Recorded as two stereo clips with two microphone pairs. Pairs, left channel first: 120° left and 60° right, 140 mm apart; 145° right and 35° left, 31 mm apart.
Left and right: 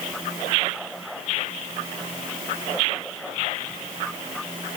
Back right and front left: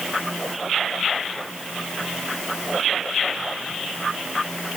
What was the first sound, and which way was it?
Only background noise.